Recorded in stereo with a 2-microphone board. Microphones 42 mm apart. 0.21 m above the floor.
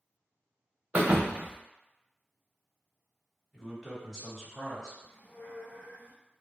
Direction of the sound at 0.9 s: 30° right (ahead or behind).